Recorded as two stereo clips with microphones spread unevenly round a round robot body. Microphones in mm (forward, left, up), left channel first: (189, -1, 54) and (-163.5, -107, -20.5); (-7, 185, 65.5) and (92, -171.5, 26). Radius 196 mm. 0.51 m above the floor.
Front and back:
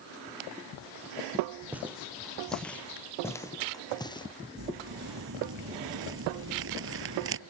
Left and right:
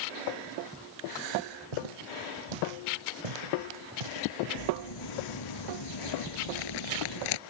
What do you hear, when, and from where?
1.7 s footsteps: 75° right; by 4.3 s 60° right
4.6 s crumpling: 135° left